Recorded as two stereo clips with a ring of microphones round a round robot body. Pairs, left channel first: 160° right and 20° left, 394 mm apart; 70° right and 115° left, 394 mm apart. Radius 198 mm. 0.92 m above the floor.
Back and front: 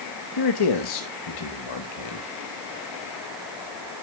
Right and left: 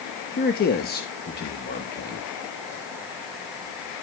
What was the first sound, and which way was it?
A man speaking, 135° right.